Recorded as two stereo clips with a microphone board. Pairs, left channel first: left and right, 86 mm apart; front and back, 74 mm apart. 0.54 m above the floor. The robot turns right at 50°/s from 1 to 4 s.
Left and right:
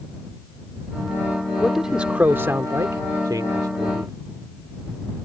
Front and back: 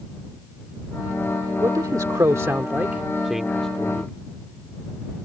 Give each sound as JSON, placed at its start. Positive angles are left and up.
{"t": 1.6, "sound": "a man speaking", "azimuth_deg": 175}